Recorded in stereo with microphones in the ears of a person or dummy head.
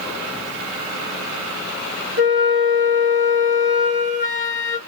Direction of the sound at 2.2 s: 40° right (ahead or behind).